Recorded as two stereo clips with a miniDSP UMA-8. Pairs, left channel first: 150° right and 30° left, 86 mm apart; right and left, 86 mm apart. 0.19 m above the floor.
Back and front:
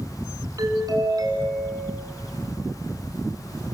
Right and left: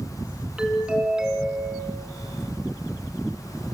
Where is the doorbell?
10° left, 2.5 m.